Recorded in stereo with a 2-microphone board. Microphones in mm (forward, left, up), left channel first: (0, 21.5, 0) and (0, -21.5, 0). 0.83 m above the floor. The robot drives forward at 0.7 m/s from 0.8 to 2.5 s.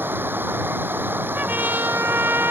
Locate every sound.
0.0 s running water: 50° right (ahead or behind)
1.4 s a trumpet: 45° right (ahead or behind); by 2.5 s 65° right (ahead or behind)